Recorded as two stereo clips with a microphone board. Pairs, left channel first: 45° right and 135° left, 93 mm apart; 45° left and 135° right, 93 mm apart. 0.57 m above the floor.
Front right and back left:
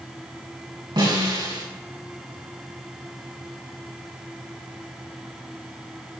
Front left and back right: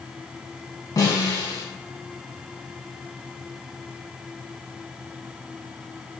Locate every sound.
1.0 s a snare drum: 95° left, 6 m